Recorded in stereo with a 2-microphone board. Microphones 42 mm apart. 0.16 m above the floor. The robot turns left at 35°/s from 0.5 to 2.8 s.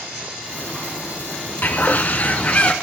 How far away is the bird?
About 0.9 m.